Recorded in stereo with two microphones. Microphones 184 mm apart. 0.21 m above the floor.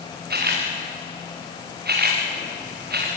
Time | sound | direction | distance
0.3 | a camera shutter | 60° right (ahead or behind) | 6.5 m